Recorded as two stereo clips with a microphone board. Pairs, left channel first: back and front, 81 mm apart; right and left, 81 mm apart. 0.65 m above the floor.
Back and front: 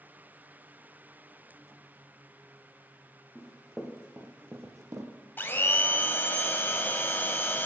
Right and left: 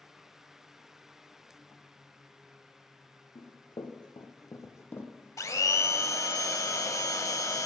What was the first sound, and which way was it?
Running footsteps, 90° right.